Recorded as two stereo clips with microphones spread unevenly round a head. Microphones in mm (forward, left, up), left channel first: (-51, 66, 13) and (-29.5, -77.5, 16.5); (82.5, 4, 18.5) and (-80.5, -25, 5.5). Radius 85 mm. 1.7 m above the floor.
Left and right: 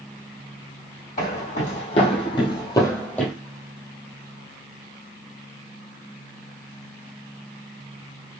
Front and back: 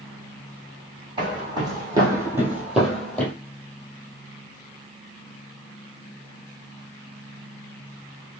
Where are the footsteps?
125° left, 3 m; by 3.3 s 5° left, 1.7 m.